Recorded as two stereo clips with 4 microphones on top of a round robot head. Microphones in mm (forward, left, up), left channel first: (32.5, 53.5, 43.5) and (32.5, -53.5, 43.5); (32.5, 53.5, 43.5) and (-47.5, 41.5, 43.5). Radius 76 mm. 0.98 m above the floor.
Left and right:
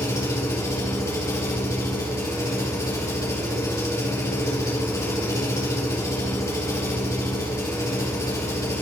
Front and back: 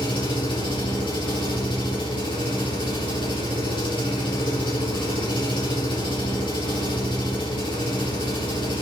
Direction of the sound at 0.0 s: 25° left.